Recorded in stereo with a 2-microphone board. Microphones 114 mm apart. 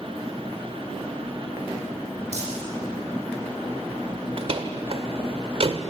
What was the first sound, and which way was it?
Crumpling, 70° right (ahead or behind).